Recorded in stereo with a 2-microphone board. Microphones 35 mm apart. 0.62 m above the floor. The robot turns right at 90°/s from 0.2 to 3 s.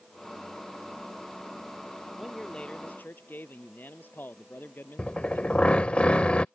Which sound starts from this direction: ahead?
A man speaking, at 2.2 s.